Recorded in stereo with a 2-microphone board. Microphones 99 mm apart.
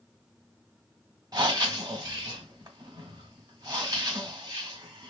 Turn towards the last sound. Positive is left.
turn(degrees=-40)  # may be behind; listen again after turning